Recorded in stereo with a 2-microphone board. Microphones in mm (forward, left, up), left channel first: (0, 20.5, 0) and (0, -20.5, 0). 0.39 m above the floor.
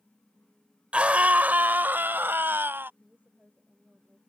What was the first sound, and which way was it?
A scream, 30° right (ahead or behind).